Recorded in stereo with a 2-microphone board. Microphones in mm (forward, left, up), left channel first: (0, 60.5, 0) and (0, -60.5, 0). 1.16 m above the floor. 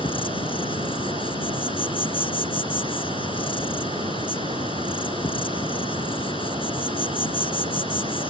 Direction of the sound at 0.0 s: 45° left (ahead or behind).